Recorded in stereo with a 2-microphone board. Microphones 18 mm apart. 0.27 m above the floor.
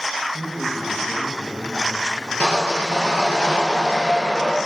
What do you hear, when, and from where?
0.3 s a man speaking: 45° left (ahead or behind), 1.5 m
2.4 s sawing: 80° left, 3 m